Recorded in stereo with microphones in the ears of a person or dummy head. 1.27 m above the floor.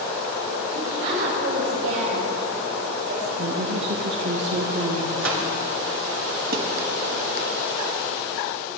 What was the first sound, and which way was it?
A woman speaking, 60° right (ahead or behind).